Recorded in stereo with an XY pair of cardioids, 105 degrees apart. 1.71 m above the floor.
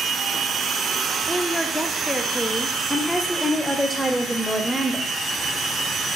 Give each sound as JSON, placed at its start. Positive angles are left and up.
{"t": 1.3, "sound": "a woman speaking", "azimuth_deg": 5, "distance_m": 0.6}
{"t": 2.9, "sound": "a woman speaking", "azimuth_deg": -5, "distance_m": 0.7}